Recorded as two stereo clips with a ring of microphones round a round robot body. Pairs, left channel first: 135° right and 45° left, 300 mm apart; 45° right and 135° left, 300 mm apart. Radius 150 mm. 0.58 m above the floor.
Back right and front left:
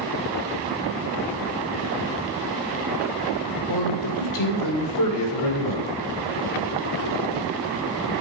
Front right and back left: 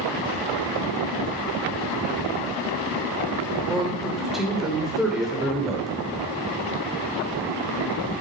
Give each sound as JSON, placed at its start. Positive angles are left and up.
{"t": 3.7, "sound": "a man speaking", "azimuth_deg": -135, "distance_m": 2.5}